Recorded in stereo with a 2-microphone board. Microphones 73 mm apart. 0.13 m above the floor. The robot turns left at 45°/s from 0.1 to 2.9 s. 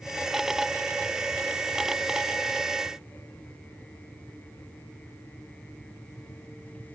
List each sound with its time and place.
Only background noise.